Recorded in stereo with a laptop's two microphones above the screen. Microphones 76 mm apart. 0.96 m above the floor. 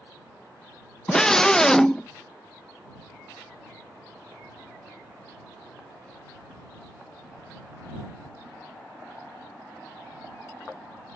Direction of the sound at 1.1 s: 10° left (ahead or behind).